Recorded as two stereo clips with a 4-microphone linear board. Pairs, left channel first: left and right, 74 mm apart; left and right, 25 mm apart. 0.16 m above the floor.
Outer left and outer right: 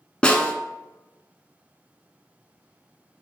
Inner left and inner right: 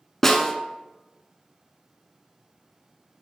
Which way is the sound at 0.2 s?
15° left (ahead or behind).